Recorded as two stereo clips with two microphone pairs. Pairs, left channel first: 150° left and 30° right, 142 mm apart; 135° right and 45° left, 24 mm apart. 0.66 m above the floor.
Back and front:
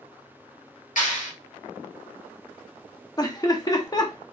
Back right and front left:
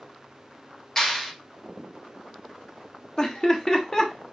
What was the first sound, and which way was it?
A clap, 160° left.